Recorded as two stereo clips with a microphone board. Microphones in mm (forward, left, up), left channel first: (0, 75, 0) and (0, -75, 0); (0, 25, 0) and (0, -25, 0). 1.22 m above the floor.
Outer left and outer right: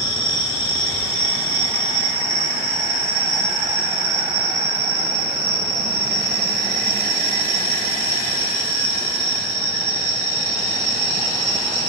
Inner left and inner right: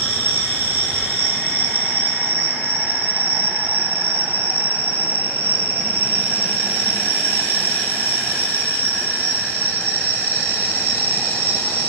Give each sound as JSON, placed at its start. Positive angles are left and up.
{"t": 0.0, "sound": "an insect", "side_deg": -45, "distance_m": 1.6}